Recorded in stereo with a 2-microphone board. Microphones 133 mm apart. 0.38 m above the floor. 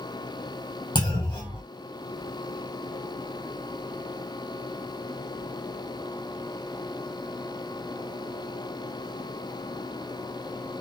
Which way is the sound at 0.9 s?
35° left (ahead or behind).